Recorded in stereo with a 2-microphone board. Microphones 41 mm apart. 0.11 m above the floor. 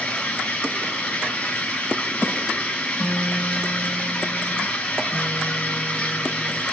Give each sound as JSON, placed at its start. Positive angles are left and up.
{"t": 0.0, "sound": "running water", "side_deg": 30, "distance_m": 1.2}
{"t": 2.9, "sound": "a guitar", "side_deg": 25, "distance_m": 1.4}